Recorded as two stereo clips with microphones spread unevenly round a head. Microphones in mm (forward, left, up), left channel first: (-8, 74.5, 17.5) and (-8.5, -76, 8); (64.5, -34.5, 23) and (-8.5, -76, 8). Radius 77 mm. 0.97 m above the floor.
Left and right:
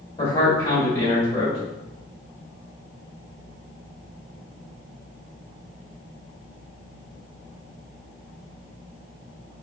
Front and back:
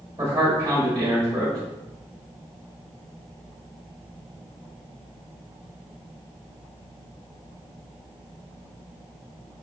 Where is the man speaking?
140° left, 1.5 m.